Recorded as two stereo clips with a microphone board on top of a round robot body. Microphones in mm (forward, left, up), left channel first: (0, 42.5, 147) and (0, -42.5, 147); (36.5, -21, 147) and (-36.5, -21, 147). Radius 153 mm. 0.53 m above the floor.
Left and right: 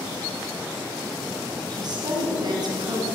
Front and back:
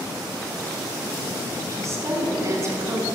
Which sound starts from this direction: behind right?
A woman speaking, at 1.7 s.